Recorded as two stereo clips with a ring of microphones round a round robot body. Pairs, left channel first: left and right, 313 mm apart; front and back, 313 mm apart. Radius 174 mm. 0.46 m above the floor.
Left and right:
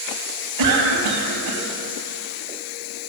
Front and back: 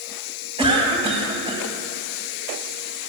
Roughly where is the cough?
Right.